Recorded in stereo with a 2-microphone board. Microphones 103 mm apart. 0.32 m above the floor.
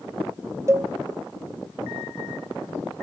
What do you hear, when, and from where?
0.7 s a cowbell: 25° right (ahead or behind), 0.6 m